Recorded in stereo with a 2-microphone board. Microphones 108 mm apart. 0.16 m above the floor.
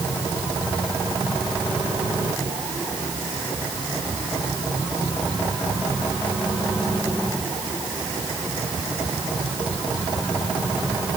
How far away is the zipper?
No zipper in this recording.